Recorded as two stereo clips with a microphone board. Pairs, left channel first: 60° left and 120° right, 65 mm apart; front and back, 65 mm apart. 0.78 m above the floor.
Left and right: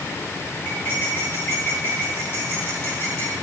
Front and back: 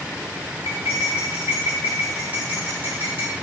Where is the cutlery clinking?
115° left, 7.5 m.